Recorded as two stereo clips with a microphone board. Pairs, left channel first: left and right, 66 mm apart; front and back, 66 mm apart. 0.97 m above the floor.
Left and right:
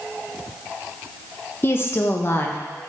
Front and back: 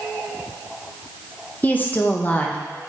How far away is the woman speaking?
About 0.7 m.